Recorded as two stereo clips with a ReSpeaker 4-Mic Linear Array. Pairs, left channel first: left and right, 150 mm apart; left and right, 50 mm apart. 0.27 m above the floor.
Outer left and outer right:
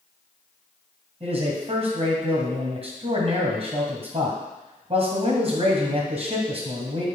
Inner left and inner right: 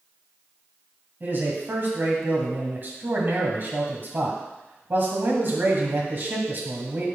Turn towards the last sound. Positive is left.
turn(degrees=-45)  # may be behind; listen again after turning